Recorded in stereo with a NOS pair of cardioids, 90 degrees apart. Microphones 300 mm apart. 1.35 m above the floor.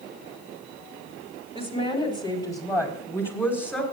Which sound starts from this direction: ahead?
A woman speaking, at 1.6 s.